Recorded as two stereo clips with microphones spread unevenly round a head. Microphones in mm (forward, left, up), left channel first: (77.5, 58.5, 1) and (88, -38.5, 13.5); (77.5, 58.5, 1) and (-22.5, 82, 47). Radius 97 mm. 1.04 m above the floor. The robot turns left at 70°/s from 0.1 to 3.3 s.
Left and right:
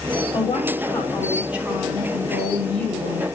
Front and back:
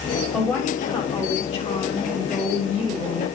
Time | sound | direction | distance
0.3 | a woman speaking | 75° left | 7 m